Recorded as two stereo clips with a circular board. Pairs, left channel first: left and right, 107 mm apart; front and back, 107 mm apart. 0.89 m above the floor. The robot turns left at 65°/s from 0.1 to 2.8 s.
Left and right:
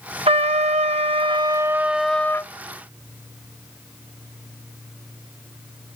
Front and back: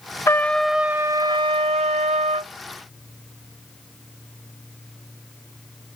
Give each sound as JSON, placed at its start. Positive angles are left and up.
{"t": 0.3, "sound": "a trumpet", "azimuth_deg": -65}